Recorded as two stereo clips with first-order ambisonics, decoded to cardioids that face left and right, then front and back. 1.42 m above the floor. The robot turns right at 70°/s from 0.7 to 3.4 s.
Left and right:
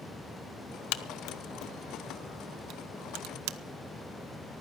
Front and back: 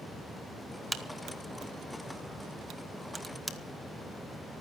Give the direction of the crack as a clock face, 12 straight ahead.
9 o'clock.